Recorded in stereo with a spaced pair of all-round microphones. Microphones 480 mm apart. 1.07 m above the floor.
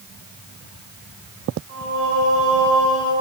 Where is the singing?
65° right (ahead or behind), 6 m.